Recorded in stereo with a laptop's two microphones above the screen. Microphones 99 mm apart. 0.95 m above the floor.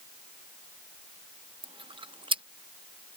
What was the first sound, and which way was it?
Chewing, 60° right (ahead or behind).